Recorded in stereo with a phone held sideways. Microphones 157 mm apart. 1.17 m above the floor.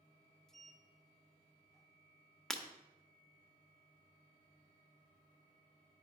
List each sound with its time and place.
0.5 s a sliding door: 5° left (ahead or behind), 0.6 m
2.5 s breaking glass: 5° left (ahead or behind), 1.2 m